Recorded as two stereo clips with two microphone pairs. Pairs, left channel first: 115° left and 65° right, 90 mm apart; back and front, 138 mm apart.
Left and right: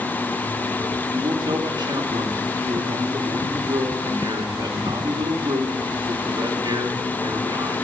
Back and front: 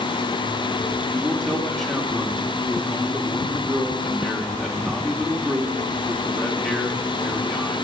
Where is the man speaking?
95° right, 1.5 m.